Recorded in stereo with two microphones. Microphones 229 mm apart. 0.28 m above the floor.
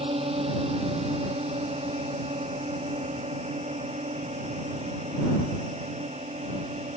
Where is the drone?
25° right (ahead or behind); by 7.0 s 30° right (ahead or behind).